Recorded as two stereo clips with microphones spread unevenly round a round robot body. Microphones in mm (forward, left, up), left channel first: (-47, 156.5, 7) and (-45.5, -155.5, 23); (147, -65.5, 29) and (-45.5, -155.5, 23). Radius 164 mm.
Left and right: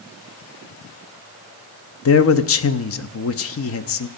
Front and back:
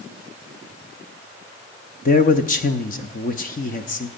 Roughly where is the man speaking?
Left.